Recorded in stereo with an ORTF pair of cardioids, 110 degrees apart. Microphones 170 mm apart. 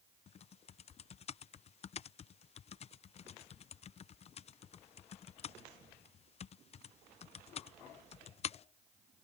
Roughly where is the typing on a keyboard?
Ahead left.